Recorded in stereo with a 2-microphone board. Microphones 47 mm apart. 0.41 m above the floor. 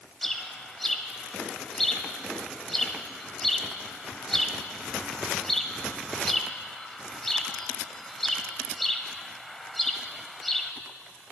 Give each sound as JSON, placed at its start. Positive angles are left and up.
{"t": 0.2, "sound": "a bird", "side_deg": 10, "distance_m": 0.9}